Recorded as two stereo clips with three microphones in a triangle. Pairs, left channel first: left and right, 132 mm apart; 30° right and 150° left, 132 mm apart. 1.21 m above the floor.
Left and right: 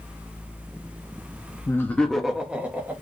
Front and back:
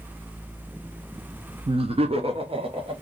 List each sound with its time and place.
1.7 s laughter: 145° left, 0.7 m; by 2.9 s 165° right, 1.4 m